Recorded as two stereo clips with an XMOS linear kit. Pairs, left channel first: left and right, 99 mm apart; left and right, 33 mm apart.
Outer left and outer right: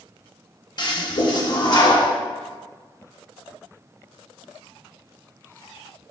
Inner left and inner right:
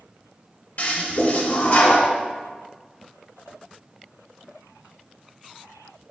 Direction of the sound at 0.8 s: 50° left (ahead or behind).